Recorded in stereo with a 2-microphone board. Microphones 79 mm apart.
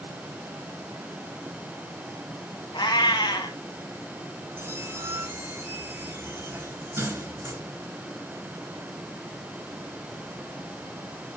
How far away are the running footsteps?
I don't hear running footsteps.